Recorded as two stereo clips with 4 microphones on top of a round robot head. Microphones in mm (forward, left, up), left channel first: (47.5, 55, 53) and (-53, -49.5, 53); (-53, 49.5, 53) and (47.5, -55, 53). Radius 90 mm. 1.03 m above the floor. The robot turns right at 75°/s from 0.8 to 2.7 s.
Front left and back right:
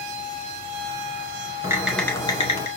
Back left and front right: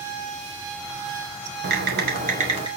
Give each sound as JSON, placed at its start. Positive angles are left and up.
{"t": 1.6, "sound": "typing on a keyboard", "azimuth_deg": -65, "distance_m": 2.5}